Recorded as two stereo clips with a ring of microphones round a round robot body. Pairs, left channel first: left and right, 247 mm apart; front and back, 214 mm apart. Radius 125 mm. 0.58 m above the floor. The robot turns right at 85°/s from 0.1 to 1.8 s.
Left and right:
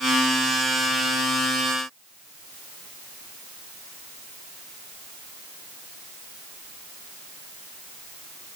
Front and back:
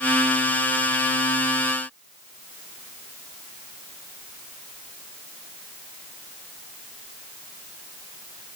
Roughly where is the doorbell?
I don't hear a doorbell.